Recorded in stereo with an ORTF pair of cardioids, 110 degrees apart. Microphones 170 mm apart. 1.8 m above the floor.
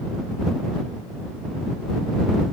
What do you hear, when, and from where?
Only background noise.